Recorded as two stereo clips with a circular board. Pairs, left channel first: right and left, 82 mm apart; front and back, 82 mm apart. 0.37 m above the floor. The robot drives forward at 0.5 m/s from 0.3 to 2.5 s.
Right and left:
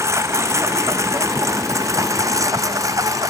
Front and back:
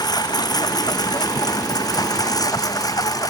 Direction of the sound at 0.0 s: 35° left.